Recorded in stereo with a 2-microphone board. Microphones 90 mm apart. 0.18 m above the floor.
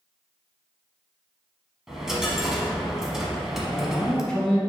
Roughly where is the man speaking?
Centre.